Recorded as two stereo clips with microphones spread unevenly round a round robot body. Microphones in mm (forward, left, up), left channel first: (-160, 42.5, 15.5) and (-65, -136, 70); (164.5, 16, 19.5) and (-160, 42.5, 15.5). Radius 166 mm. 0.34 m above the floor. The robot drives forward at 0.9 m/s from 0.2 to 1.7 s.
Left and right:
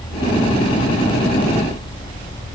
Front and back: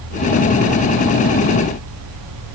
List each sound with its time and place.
Only background noise.